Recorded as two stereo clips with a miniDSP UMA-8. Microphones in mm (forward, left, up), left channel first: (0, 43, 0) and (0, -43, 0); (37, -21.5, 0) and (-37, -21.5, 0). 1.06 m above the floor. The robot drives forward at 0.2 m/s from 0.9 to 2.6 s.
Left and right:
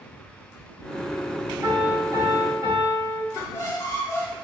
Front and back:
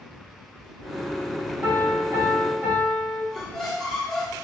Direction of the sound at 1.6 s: 130° right.